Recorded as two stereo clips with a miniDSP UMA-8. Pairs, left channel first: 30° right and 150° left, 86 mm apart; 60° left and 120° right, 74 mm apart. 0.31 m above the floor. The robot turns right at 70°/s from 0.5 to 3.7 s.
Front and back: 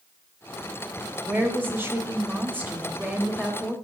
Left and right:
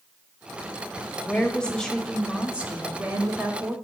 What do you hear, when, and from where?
1.2 s a woman speaking: 95° left, 1.1 m; by 3.8 s 95° right, 1.1 m